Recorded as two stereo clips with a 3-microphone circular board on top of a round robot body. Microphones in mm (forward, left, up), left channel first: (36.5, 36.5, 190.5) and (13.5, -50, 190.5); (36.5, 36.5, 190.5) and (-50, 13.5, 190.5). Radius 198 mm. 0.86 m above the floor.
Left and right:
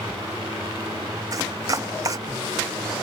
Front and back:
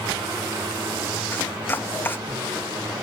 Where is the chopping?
55° right.